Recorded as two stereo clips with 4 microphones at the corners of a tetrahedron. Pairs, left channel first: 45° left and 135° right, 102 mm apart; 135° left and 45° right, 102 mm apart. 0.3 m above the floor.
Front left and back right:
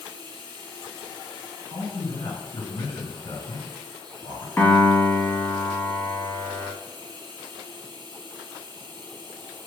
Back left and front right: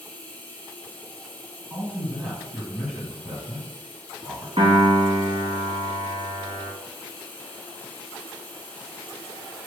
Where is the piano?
25° right, 1.0 m.